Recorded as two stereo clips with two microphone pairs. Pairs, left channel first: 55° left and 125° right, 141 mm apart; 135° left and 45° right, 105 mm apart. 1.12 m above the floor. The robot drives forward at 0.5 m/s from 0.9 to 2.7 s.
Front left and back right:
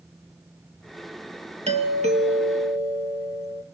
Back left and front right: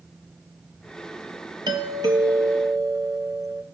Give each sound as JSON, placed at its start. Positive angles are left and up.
{"t": 1.7, "sound": "a doorbell", "azimuth_deg": -90, "distance_m": 2.5}